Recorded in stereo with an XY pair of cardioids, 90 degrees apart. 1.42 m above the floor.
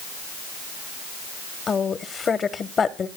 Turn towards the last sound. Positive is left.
turn(degrees=50)